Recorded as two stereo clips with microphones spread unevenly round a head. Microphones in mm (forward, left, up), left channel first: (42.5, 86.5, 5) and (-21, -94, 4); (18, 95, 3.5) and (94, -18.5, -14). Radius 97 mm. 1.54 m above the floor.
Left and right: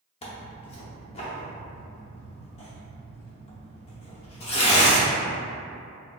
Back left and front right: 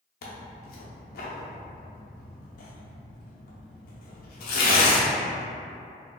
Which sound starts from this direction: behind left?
Tearing paper, at 0.2 s.